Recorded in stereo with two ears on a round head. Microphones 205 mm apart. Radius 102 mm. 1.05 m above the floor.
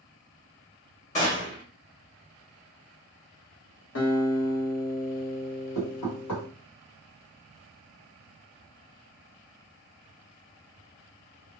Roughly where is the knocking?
Left.